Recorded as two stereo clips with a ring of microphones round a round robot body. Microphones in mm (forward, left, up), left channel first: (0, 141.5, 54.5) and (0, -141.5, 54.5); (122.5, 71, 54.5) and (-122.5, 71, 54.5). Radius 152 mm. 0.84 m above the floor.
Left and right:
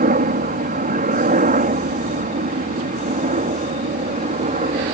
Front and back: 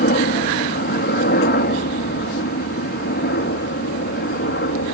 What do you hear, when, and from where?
0.0 s a helicopter: 40° right; by 5.0 s 35° right